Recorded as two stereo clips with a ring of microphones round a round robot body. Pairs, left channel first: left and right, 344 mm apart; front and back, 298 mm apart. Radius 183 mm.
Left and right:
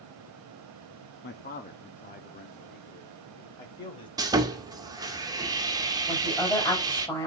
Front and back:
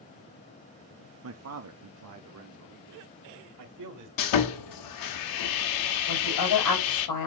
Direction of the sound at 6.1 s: 10° left.